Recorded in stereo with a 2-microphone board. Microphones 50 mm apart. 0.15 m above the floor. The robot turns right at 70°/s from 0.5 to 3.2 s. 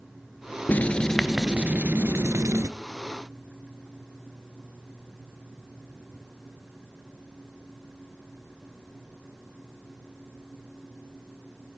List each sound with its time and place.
0.7 s writing: 140° left, 0.7 m; by 2.7 s 80° right, 0.7 m